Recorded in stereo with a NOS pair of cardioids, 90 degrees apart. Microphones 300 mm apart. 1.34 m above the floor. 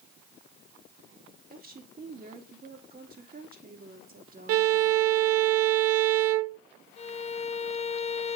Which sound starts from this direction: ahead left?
A violin, at 7.0 s.